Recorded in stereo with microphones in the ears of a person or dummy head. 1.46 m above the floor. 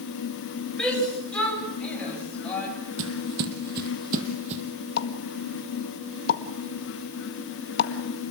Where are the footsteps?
60° right (ahead or behind), 3 m; by 4.6 s 35° right (ahead or behind), 3 m.